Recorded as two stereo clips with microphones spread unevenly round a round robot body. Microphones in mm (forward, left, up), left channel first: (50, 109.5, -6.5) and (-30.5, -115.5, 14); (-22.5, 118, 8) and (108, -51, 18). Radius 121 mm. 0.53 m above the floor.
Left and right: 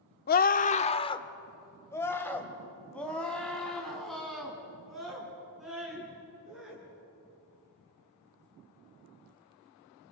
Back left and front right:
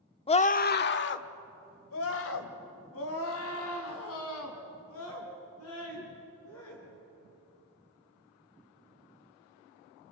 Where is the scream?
80° left, 0.9 m; by 6.8 s 160° left, 6.5 m.